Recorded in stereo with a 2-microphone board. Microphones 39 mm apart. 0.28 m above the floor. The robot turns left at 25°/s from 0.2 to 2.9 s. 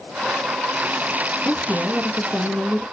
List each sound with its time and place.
1.4 s a woman speaking: 130° left, 4 m; by 2.8 s 100° left, 4 m